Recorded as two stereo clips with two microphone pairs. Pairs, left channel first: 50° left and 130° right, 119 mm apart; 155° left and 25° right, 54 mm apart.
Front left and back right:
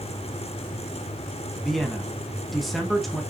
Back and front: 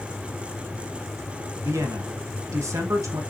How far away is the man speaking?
About 1.8 m.